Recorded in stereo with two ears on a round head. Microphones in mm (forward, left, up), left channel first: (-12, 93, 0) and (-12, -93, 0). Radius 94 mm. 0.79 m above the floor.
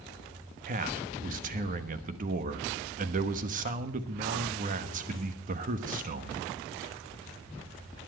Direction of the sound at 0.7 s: 40° right (ahead or behind).